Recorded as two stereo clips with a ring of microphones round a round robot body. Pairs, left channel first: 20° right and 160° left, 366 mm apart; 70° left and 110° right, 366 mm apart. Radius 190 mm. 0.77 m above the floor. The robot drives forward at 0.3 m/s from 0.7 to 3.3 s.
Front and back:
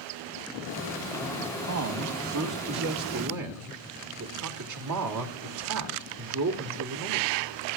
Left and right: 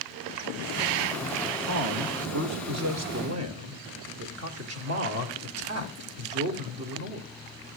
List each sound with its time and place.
1.6 s a man speaking: 155° right, 2 m; by 7.3 s 160° right, 2.5 m